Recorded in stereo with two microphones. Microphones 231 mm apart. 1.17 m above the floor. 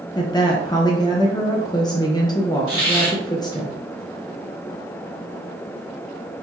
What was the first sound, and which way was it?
A woman speaking, 15° left (ahead or behind).